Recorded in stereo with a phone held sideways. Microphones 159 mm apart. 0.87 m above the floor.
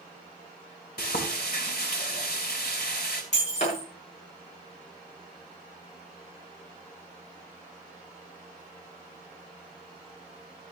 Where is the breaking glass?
45° left (ahead or behind), 8 m.